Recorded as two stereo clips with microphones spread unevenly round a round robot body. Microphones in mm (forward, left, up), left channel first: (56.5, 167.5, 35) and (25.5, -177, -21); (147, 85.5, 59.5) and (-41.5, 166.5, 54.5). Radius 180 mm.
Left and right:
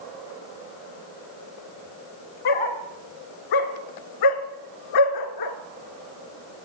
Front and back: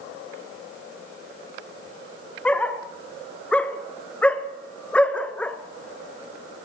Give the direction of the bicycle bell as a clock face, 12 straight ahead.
No bicycle bell in this recording.